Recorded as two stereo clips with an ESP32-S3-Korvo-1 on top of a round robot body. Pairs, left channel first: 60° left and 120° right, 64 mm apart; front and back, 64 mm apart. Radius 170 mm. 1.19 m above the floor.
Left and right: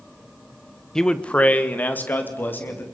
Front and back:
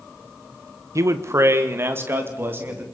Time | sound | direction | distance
0.9 | a man speaking | 140° left | 1.1 m